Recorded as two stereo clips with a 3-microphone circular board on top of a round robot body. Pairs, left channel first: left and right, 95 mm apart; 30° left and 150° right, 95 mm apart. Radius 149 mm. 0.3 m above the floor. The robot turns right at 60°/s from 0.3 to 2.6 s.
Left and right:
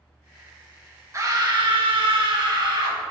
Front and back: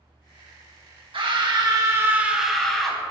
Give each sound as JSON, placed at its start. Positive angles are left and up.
{"t": 1.1, "sound": "a scream", "azimuth_deg": -145, "distance_m": 3.0}